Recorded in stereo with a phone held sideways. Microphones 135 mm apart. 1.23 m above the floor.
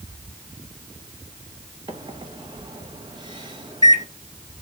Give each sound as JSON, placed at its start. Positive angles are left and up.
{"t": 1.9, "sound": "a microwave", "side_deg": -35, "distance_m": 0.8}